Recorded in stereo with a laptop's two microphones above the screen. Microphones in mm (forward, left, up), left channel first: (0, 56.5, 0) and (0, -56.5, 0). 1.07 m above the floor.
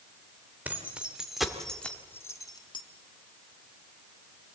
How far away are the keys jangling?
About 3 m.